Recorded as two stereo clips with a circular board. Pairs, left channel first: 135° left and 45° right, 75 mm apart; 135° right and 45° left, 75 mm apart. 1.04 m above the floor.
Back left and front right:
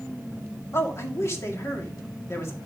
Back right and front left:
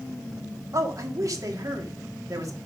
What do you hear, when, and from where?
0.7 s a man speaking: 85° left, 1.9 m